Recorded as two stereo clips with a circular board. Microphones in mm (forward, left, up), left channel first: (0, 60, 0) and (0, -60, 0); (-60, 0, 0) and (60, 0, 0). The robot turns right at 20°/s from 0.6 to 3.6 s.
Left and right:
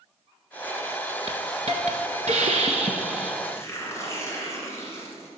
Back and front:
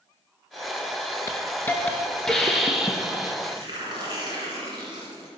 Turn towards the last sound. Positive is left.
turn(degrees=30)